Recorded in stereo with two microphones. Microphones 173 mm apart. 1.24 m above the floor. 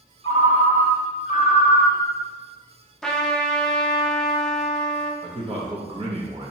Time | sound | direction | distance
0.2 | a ringtone | 35° left (ahead or behind) | 1.3 m
3.0 | a trumpet | 5° left (ahead or behind) | 0.6 m
5.2 | a man speaking | 30° right (ahead or behind) | 0.9 m